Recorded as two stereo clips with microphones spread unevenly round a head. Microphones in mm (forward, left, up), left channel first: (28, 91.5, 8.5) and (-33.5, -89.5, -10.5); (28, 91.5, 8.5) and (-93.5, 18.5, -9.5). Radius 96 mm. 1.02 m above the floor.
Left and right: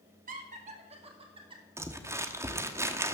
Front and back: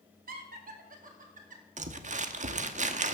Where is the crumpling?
175° left, 0.9 m.